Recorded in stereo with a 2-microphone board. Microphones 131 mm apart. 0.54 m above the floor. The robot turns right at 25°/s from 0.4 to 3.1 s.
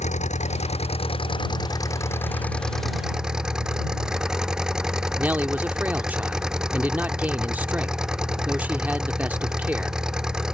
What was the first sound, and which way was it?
An engine running, 120° left.